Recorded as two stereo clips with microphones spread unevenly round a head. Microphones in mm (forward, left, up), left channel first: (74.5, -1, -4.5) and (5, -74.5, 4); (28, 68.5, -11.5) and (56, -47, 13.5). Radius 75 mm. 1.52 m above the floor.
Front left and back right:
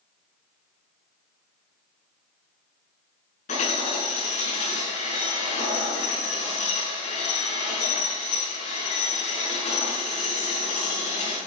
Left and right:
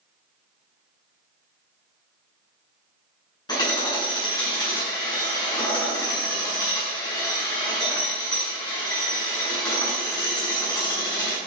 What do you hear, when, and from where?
3.5 s hammering: 45° left, 8.5 m